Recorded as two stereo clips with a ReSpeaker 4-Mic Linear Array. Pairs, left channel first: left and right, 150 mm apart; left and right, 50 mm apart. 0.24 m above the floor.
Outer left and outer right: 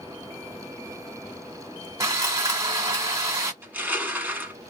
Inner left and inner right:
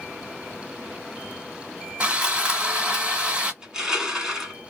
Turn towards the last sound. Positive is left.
turn(degrees=-15)  # may be behind; listen again after turning